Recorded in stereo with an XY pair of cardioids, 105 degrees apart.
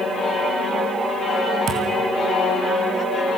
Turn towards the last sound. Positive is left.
turn(degrees=-70)